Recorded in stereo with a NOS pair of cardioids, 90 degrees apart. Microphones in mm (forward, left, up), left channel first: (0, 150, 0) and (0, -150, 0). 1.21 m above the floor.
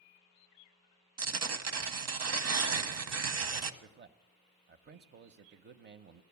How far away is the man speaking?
About 0.7 m.